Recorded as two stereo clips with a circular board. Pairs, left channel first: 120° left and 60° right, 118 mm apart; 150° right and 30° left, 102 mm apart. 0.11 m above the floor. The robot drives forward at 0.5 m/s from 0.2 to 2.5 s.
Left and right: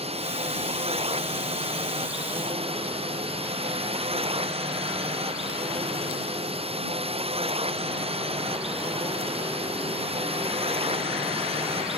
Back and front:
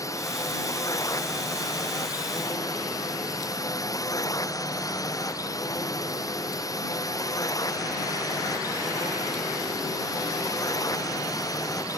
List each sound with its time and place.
0.0 s a drone: 90° right; by 12.0 s 95° right